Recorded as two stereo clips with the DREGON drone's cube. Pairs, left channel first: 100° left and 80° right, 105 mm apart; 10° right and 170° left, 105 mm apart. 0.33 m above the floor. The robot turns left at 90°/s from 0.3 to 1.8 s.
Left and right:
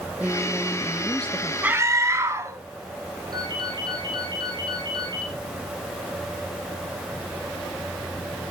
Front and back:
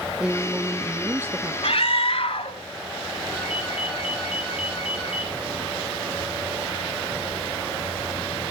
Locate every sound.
0.2 s a woman speaking: 120° right, 0.9 m; by 1.5 s 130° left, 0.9 m
1.6 s a scream: 5° right, 2.5 m; by 2.6 s 20° right, 2.5 m
3.3 s a ringtone: 30° right, 6 m